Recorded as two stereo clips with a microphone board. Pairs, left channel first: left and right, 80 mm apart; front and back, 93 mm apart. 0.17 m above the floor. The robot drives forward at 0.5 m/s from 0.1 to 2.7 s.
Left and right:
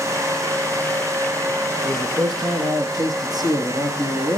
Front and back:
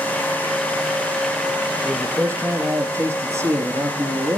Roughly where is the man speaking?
Behind right.